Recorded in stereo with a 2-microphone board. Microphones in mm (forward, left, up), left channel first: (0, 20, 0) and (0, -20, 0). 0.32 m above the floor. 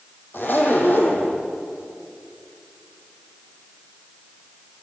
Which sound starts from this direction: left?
A zipper, at 0.3 s.